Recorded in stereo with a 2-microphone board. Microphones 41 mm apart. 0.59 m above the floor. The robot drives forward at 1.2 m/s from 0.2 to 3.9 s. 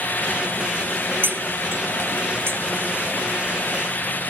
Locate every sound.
1.2 s cutlery clinking: 65° right (ahead or behind); by 2.6 s 70° right (ahead or behind)